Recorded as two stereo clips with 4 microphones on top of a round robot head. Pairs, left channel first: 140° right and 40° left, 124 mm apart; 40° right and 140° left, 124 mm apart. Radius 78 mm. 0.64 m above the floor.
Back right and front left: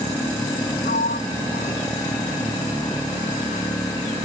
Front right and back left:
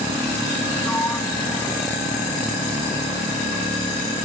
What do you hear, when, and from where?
0.8 s a sliding door: 115° right